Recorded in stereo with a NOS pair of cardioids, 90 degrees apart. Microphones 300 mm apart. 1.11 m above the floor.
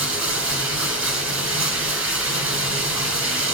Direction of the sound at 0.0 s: 45° right.